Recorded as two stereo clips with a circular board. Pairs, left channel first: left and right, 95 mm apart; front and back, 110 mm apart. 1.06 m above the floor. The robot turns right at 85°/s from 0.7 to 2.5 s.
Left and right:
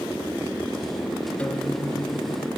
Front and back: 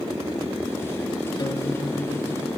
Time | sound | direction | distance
1.4 | a guitar | 15° left | 1.0 m